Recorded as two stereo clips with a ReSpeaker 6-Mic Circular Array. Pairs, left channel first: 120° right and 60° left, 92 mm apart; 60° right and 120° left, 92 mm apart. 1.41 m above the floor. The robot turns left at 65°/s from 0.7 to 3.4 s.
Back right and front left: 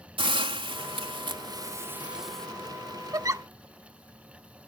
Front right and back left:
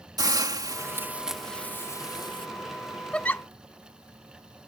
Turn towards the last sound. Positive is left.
turn(degrees=0)